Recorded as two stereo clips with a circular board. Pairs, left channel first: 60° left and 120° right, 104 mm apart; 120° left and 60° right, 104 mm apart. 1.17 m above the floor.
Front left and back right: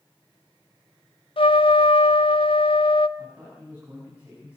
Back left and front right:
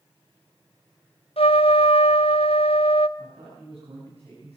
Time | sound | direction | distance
1.4 | a trumpet | 95° left | 0.7 m
3.2 | a man speaking | 45° right | 7.5 m